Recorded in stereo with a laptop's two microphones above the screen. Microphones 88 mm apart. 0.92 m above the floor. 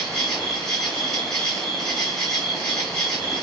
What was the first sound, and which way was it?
An insect, 5° left (ahead or behind).